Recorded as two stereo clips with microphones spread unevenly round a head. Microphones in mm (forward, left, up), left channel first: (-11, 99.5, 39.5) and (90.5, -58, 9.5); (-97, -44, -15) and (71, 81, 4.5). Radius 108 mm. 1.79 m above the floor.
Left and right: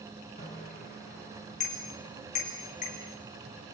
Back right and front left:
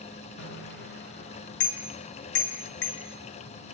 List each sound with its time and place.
0.4 s a bicycle bell: straight behind, 6 m